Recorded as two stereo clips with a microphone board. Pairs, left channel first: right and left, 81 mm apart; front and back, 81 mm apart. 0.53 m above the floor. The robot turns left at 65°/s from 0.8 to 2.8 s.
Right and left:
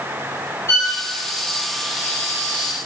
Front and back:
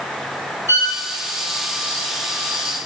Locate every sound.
0.7 s a violin: 135° right, 1.0 m; by 0.9 s 145° right, 1.0 m